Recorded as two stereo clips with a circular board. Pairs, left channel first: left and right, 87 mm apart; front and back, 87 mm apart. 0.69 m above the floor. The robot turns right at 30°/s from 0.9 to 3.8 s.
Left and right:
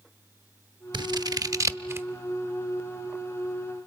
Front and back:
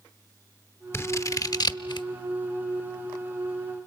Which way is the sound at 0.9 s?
60° right.